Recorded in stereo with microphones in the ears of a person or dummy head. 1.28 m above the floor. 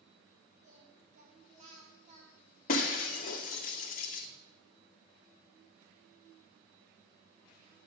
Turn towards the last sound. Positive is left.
turn(degrees=55)  # may be behind; listen again after turning